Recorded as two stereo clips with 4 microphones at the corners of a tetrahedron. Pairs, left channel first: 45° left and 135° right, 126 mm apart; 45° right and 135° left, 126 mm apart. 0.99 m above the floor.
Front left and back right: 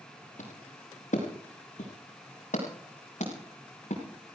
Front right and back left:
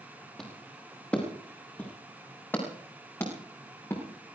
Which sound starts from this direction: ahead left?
Footsteps, at 0.4 s.